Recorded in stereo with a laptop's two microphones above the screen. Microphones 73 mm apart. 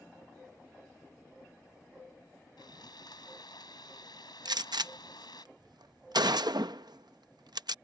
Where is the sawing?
80° left.